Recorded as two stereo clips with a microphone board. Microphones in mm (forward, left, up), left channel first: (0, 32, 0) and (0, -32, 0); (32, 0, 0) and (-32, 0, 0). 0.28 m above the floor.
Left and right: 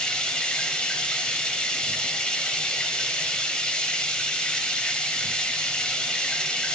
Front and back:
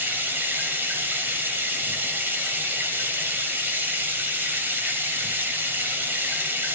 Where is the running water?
155° left, 1.0 m.